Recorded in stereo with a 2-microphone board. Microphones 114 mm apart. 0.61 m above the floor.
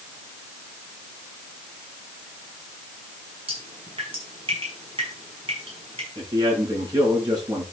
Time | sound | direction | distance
3.5 | dripping | 50° right (ahead or behind) | 6 m
6.2 | a man speaking | 35° right (ahead or behind) | 7 m